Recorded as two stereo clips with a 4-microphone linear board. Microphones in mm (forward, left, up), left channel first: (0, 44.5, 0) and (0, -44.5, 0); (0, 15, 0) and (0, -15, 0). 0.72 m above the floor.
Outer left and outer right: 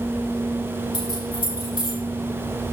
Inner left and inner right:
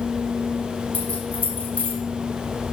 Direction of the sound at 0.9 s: 70° left (ahead or behind).